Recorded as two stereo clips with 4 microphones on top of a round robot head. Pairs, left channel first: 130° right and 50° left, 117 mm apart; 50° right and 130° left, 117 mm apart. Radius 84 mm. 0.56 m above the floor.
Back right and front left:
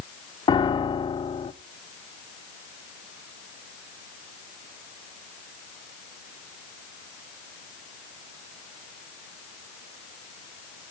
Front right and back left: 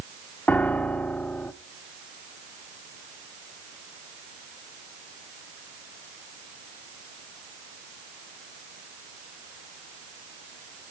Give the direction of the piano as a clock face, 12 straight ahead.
4 o'clock.